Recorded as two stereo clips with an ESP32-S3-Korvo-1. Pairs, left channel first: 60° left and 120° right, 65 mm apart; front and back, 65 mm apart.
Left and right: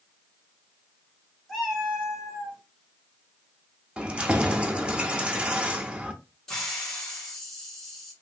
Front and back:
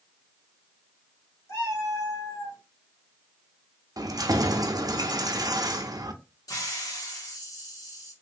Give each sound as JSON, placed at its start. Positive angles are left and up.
{"t": 1.5, "sound": "a cat meowing", "azimuth_deg": -30, "distance_m": 1.7}
{"t": 4.0, "sound": "keys jangling", "azimuth_deg": 165, "distance_m": 0.5}
{"t": 6.5, "sound": "a hiss", "azimuth_deg": -25, "distance_m": 1.4}